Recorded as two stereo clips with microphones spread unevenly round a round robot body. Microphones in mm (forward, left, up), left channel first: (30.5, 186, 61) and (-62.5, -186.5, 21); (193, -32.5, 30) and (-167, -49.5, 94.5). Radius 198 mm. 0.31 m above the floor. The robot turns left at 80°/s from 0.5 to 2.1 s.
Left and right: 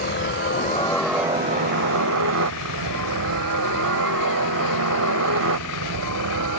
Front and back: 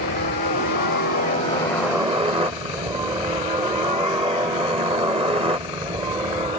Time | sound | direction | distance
0.0 | a helicopter | 30° left | ?